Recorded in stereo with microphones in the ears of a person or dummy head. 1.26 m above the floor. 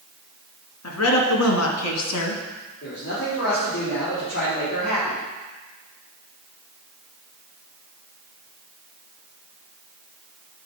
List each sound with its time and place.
0.8 s a woman speaking: 75° left (ahead or behind), 2 m; by 2.4 s 80° left, 1.2 m
2.8 s a man speaking: 50° left (ahead or behind), 3 m